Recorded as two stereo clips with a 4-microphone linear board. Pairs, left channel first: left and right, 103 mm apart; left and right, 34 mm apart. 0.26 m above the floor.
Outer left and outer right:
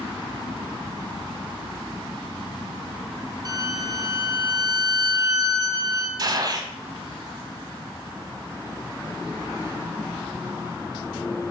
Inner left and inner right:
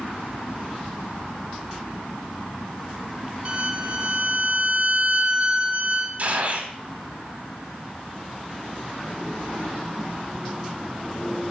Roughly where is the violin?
Right.